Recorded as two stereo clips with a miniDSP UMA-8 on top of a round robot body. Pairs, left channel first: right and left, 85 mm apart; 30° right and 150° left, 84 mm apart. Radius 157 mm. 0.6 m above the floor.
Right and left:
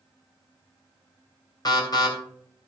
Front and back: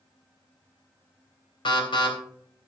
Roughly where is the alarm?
Ahead right.